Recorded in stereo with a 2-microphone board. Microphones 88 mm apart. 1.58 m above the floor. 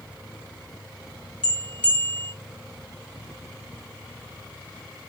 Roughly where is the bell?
Centre.